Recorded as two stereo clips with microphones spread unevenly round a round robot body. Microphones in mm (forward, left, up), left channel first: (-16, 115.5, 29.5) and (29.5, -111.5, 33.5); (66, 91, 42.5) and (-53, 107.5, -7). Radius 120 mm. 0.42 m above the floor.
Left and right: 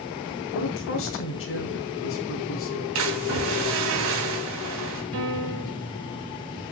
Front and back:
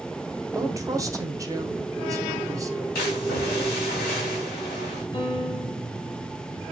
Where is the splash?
50° right, 3.5 m.